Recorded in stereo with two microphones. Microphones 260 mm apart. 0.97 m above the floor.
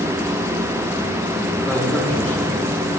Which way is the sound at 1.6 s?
5° left (ahead or behind).